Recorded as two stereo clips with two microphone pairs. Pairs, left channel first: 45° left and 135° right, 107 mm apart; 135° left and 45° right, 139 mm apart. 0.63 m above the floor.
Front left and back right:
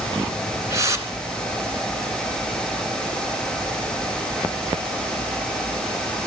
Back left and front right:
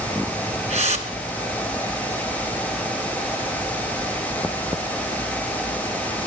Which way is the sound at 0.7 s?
75° right.